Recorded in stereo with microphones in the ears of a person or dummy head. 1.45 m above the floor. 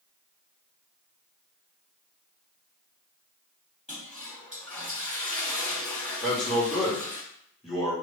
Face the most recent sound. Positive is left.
turn(degrees=0)  # may be behind; listen again after turning